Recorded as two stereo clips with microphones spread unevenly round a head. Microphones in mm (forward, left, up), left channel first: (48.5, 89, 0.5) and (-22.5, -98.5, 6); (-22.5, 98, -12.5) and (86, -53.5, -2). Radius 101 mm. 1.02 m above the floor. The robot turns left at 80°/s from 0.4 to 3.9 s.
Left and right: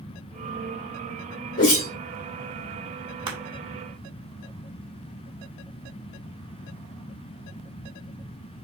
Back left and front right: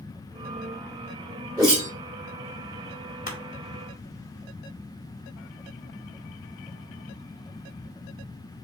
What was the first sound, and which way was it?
A whoosh, 25° left.